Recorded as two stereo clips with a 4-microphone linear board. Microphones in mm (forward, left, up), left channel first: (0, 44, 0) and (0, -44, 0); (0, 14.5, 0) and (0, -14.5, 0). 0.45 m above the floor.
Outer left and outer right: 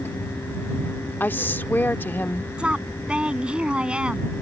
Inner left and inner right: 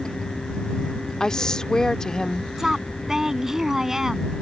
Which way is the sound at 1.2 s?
20° left (ahead or behind).